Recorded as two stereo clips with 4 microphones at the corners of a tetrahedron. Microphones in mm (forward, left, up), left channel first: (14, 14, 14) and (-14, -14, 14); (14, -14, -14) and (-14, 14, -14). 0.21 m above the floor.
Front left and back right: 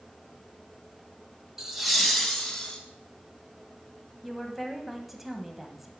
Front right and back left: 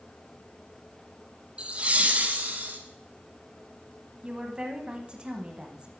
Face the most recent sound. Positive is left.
turn(degrees=145)